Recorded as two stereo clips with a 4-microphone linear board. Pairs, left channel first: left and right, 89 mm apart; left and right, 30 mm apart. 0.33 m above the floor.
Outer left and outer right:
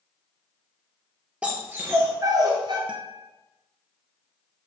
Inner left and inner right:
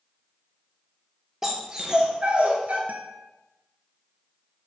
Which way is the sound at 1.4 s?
15° right (ahead or behind).